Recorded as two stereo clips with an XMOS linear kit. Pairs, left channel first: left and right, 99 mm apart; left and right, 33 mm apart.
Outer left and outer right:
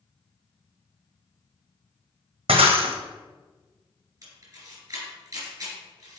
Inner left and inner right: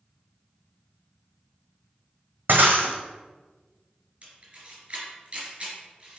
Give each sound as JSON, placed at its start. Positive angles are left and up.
{"t": 2.5, "sound": "breaking glass", "side_deg": -85, "distance_m": 1.3}
{"t": 4.2, "sound": "a camera shutter", "side_deg": -35, "distance_m": 3.0}